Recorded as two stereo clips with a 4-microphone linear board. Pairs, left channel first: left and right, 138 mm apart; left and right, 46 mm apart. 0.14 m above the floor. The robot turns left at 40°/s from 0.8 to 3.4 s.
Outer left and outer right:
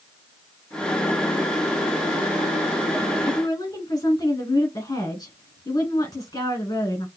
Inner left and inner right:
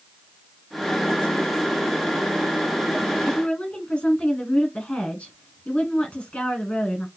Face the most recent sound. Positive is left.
turn(degrees=25)  # may be behind; listen again after turning